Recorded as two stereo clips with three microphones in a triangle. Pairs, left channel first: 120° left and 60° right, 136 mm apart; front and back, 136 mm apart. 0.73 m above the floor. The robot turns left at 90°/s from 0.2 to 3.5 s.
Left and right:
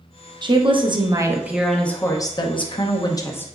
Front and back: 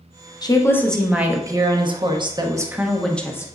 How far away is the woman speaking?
About 0.6 m.